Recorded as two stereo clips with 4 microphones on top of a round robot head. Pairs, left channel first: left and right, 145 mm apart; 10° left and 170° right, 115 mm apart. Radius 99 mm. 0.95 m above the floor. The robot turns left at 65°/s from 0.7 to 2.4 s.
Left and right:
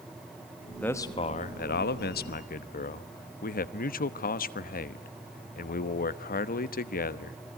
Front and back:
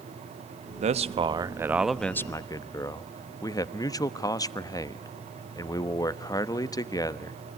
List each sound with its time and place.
0.8 s a man speaking: 170° left, 1.0 m; by 7.4 s 70° left, 1.0 m